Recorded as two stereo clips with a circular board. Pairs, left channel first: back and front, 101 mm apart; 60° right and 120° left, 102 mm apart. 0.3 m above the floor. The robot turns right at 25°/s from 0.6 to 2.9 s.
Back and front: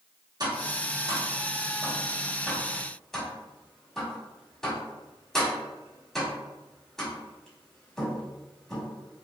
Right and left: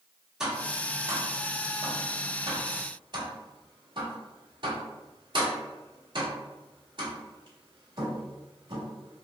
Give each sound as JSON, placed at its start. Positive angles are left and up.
{"t": 0.4, "sound": "tapping", "azimuth_deg": 35, "distance_m": 1.2}